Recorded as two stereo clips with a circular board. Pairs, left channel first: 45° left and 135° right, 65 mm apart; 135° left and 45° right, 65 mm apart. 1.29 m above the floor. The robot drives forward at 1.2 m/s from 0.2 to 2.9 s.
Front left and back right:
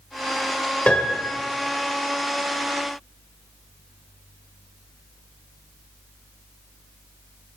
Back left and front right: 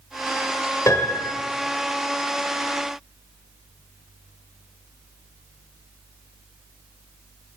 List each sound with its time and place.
0.9 s a piano: 110° left, 1.7 m; by 1.4 s 130° left, 2.0 m